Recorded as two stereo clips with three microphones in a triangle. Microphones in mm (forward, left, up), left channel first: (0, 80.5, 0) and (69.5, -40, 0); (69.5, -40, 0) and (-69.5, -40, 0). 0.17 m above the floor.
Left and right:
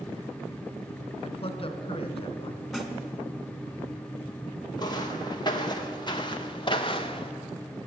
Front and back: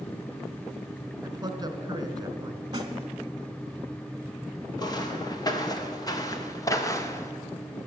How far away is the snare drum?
About 1.4 m.